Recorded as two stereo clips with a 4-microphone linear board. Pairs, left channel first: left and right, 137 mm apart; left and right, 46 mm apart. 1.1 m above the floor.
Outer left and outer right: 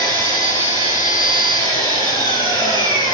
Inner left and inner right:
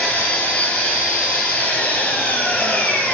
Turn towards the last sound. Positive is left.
turn(degrees=35)  # may be behind; listen again after turning